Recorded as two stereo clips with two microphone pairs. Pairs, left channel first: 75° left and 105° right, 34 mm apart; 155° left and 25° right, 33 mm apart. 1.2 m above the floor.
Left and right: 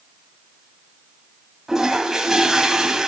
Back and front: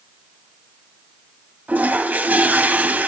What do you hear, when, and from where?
1.7 s a toilet flushing: 35° right, 2.0 m